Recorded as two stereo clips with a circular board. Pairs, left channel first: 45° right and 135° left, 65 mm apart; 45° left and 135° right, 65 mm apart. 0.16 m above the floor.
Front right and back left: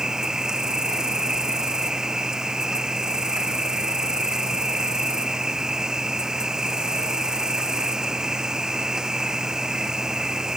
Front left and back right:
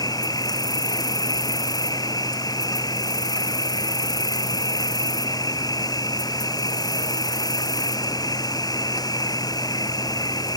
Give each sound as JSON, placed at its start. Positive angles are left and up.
{"t": 0.0, "sound": "an insect", "azimuth_deg": 55}